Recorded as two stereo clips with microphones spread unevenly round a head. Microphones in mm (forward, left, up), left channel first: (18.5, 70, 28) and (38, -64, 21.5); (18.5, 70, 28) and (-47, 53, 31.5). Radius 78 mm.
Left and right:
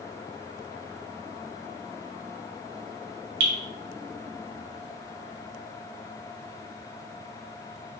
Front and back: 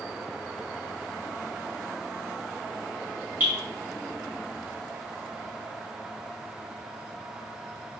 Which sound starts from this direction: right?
Dripping, at 3.4 s.